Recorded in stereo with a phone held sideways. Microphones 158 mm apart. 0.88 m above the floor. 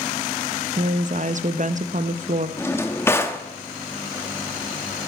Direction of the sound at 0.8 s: 55° right (ahead or behind).